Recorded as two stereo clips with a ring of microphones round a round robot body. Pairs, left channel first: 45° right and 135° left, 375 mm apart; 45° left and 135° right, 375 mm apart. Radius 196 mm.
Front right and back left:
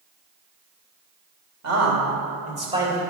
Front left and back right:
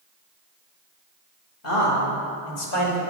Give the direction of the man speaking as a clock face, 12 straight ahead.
9 o'clock.